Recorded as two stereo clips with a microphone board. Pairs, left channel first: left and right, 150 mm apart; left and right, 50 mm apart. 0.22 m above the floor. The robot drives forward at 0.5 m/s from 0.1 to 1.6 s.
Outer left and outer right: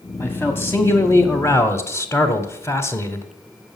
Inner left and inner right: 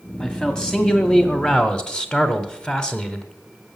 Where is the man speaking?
15° left (ahead or behind), 1.2 m; by 3.3 s 20° left (ahead or behind), 1.0 m.